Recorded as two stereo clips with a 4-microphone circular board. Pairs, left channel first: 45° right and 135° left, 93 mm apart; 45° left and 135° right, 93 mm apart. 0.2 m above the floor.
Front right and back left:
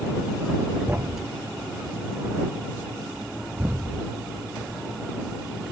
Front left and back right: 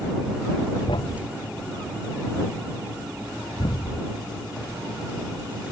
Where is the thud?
70° left.